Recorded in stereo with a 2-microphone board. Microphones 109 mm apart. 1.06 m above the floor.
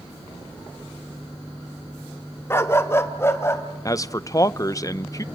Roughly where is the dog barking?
Left.